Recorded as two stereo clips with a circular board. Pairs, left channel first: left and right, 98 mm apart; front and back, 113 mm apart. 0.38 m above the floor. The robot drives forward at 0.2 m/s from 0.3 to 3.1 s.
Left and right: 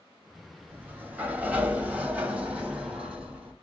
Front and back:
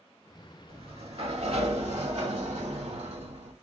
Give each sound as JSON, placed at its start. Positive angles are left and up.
{"t": 0.7, "sound": "a sliding door", "azimuth_deg": -155, "distance_m": 0.6}